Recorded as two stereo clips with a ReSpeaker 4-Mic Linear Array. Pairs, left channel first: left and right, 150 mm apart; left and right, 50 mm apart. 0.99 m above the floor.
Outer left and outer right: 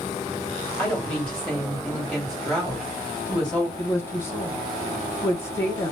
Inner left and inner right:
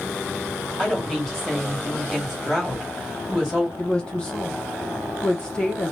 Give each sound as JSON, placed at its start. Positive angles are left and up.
{"t": 0.8, "sound": "a woman speaking", "side_deg": 5, "distance_m": 1.9}
{"t": 3.8, "sound": "a woman speaking", "side_deg": 15, "distance_m": 0.8}